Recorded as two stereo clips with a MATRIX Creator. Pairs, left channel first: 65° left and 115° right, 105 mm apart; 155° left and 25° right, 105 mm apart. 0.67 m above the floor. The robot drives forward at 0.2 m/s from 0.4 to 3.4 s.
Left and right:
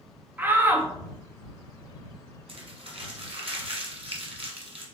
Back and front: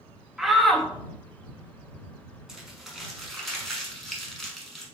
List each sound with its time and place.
0.4 s a shout: 100° right, 0.5 m; by 0.9 s 125° right, 0.6 m
2.5 s crumpling: 105° right, 1.0 m; by 4.8 s 115° right, 1.1 m